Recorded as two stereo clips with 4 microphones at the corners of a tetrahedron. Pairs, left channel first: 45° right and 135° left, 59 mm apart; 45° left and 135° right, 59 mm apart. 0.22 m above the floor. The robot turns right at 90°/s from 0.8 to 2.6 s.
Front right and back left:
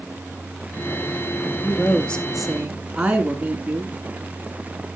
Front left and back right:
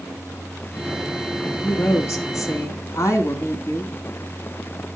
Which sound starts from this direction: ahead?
A woman speaking, at 1.6 s.